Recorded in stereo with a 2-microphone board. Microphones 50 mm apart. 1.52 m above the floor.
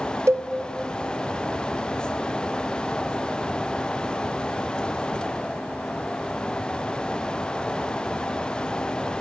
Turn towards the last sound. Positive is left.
turn(degrees=-70)  # may be behind; listen again after turning